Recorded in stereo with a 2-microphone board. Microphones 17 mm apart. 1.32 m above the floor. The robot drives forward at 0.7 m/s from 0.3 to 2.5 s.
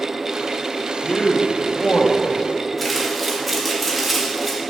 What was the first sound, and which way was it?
A man speaking, 60° left (ahead or behind).